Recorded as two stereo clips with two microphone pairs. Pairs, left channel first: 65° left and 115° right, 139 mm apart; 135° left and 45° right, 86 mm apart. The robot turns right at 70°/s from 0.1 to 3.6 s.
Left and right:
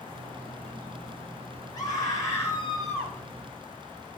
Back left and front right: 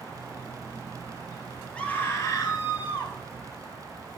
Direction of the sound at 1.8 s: 75° left.